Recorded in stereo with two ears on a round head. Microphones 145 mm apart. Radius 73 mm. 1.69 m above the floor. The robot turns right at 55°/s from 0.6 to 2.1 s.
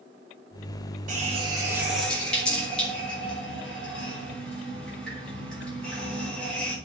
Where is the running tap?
50° right (ahead or behind), 5 m; by 6.8 s 5° left (ahead or behind), 5 m.